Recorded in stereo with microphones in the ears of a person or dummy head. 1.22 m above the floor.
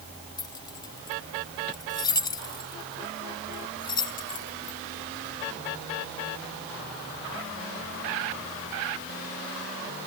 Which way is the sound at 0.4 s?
25° left (ahead or behind).